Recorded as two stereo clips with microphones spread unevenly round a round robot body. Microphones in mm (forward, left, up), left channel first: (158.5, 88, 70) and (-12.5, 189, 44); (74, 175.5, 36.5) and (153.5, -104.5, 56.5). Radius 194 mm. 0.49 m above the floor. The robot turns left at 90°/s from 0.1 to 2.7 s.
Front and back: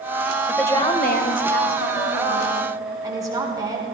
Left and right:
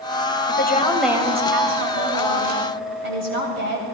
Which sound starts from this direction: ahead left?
A woman speaking, at 0.5 s.